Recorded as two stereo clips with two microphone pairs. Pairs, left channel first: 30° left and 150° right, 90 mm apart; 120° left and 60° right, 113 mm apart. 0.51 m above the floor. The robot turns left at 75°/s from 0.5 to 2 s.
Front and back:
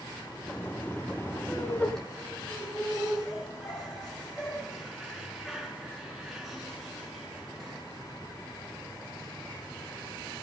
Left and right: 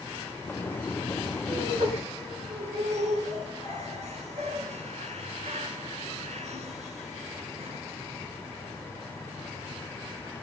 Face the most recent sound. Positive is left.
turn(degrees=-60)